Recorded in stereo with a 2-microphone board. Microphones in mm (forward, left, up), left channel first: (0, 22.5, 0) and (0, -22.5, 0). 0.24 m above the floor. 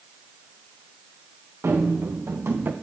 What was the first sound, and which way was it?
Running footsteps, 75° right (ahead or behind).